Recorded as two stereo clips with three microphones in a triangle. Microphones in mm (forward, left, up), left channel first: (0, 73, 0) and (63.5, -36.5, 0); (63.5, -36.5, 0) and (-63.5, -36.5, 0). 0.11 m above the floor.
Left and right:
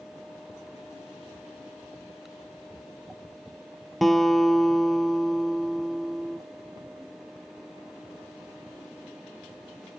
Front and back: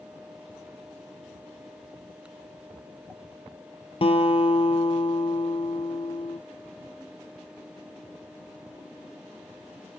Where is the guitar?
30° left, 1.0 m.